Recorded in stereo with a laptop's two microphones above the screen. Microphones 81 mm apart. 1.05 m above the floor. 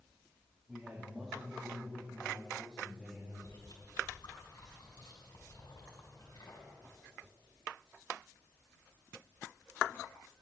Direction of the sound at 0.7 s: 5° right (ahead or behind).